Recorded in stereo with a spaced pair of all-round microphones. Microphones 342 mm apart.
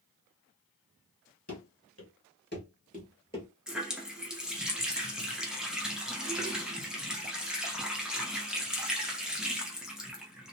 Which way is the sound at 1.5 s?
50° left (ahead or behind).